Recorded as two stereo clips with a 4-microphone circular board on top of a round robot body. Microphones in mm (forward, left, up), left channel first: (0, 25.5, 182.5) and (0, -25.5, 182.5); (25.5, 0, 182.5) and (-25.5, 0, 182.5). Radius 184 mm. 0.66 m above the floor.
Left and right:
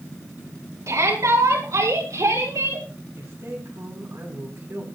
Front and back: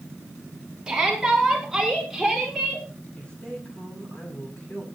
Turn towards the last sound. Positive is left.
turn(degrees=-65)